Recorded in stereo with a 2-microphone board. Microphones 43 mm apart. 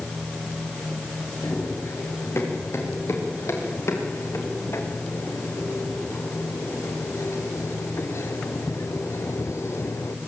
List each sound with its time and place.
1.4 s running footsteps: 80° left, 6.5 m; by 10.2 s 85° left, 1.6 m